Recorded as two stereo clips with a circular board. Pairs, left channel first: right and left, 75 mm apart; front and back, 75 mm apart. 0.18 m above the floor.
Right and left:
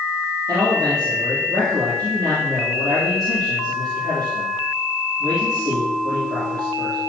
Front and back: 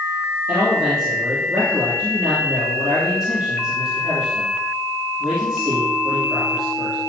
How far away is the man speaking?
About 4.5 m.